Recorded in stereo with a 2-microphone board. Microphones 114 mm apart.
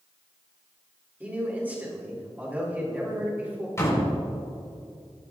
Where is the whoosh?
I don't hear a whoosh.